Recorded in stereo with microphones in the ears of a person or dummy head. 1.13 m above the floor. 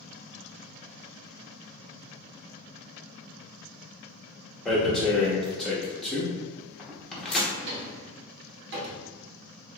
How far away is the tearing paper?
About 1.1 m.